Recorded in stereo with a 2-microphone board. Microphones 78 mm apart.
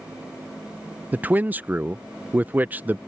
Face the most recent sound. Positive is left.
turn(degrees=-25)  # may be behind; listen again after turning